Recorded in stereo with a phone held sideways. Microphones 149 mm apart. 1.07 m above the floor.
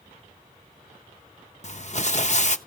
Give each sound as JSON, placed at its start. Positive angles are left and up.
{"t": 1.6, "sound": "crumpling", "side_deg": 50, "distance_m": 0.6}